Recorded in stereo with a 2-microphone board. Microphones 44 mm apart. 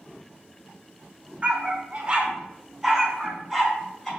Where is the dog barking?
30° right (ahead or behind), 1.5 m; by 4.1 s 10° left (ahead or behind), 1.8 m.